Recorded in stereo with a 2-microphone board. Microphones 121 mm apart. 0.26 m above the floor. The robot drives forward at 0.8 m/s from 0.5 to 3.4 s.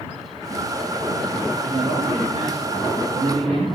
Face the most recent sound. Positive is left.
turn(degrees=-60)  # may be behind; listen again after turning